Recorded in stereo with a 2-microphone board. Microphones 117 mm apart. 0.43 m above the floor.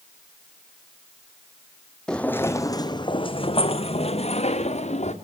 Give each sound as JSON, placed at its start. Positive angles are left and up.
{"t": 2.1, "sound": "footsteps", "side_deg": 5, "distance_m": 1.3}